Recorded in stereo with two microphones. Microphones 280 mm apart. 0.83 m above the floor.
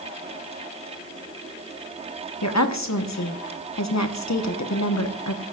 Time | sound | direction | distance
2.4 | a woman speaking | 70° left (ahead or behind) | 1.1 m